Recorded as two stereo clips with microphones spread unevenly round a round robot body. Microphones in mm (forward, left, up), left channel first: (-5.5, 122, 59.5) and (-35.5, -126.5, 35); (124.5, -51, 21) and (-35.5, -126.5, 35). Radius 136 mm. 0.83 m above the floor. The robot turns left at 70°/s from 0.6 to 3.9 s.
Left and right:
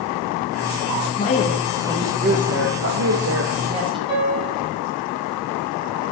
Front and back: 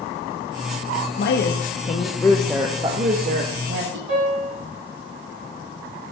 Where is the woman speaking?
30° left, 0.8 m; by 4.0 s 165° right, 0.8 m.